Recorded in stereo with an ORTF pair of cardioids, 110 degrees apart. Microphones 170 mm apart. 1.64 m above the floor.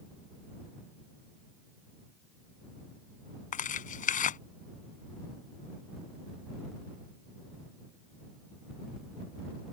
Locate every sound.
3.5 s tearing paper: 50° left